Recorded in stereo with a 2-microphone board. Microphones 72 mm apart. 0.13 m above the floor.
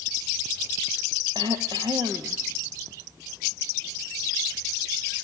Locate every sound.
1.4 s throat clearing: 75° right (ahead or behind), 1.5 m